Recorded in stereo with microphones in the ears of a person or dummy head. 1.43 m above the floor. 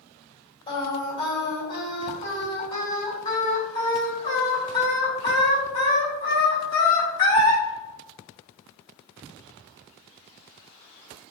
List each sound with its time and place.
0.7 s singing: 30° left (ahead or behind), 1.9 m